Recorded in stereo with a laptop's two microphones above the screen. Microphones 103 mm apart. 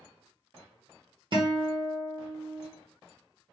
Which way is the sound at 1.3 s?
50° right (ahead or behind).